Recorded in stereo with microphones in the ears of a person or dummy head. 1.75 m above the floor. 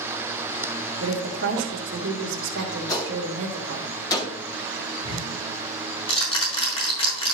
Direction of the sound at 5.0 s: 30° left (ahead or behind).